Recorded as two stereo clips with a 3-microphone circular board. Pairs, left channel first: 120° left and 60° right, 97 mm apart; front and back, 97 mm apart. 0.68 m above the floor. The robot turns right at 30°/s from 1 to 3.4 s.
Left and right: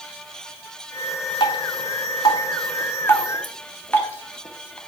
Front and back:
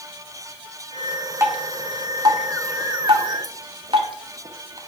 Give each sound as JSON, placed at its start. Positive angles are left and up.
{"t": 1.4, "sound": "dripping", "azimuth_deg": 130, "distance_m": 1.5}